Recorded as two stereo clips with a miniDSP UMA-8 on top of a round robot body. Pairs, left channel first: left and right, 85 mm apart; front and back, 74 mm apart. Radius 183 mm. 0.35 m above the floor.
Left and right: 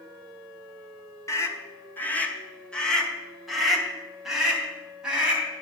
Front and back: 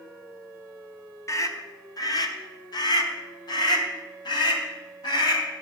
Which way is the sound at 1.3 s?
40° left.